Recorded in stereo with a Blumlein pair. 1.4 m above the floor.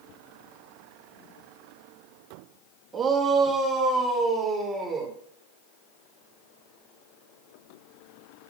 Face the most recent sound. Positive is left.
turn(degrees=-10)